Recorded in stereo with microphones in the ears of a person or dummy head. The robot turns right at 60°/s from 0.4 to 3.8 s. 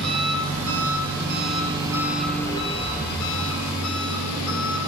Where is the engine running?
115° right, 7 m; by 4.9 s 90° left, 7 m.